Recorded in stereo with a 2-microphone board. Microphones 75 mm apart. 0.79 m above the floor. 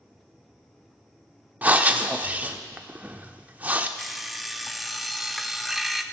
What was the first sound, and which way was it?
Breathing, 20° right (ahead or behind).